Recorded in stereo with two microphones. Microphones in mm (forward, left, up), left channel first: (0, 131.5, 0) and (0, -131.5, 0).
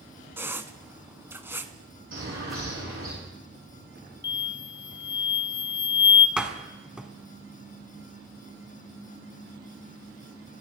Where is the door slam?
5° right (ahead or behind), 1.4 m.